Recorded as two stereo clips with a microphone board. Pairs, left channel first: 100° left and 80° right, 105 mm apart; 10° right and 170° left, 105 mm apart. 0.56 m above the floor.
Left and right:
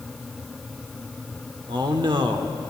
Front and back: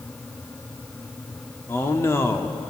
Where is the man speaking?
70° right, 1.2 m.